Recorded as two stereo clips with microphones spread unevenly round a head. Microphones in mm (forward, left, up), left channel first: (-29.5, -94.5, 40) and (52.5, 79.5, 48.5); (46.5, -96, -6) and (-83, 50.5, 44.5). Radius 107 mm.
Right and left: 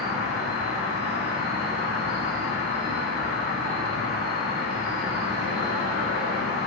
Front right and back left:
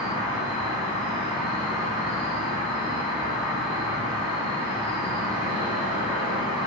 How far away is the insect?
About 1.3 m.